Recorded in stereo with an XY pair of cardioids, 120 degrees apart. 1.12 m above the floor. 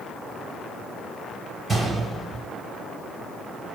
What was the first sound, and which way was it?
A gunshot, 25° right.